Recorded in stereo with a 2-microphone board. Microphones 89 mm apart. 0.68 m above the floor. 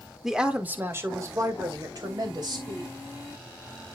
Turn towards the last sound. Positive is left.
turn(degrees=-60)  # may be behind; listen again after turning